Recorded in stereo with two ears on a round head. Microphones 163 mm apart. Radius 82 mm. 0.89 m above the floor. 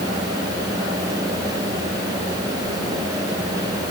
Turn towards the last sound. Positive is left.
No sound to turn to.